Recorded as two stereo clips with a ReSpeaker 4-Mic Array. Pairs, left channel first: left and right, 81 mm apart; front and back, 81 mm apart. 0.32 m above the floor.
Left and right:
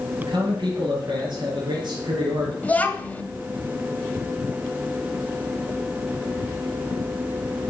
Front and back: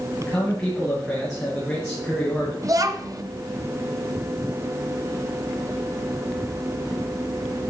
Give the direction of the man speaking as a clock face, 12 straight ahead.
3 o'clock.